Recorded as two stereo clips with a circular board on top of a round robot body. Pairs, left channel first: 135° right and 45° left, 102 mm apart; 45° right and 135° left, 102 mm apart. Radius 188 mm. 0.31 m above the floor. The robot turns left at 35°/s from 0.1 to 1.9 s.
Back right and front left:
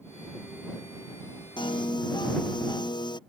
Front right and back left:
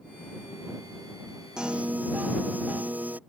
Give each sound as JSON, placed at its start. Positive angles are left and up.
{"t": 1.6, "sound": "a piano", "azimuth_deg": -140}